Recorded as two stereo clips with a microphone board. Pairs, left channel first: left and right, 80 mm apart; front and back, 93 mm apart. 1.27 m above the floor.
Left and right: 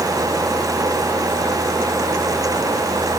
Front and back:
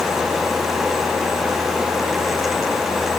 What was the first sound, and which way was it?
Only background noise.